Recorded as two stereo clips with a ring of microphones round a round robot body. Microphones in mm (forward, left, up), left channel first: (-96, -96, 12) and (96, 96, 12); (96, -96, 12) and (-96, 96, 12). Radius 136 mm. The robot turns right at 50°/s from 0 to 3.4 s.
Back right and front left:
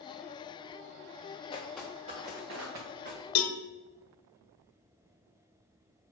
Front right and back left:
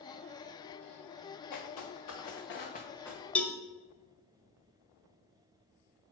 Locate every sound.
1.5 s footsteps: 65° right, 1.9 m; by 3.2 s 45° left, 2.5 m
3.4 s a cowbell: 130° right, 0.7 m; by 3.6 s 125° right, 0.7 m